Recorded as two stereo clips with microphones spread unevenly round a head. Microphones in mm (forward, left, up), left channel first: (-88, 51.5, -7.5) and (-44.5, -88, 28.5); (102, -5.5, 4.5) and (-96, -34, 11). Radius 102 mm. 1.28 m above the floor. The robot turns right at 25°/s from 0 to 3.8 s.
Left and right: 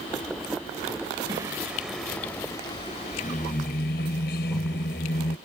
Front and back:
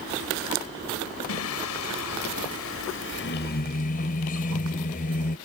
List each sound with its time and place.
1.3 s singing: straight ahead; by 5.4 s 60° left